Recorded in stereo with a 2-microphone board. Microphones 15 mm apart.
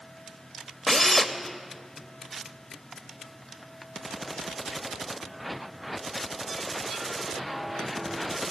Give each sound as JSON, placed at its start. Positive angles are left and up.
{"t": 0.9, "sound": "a drill", "side_deg": 30, "distance_m": 1.1}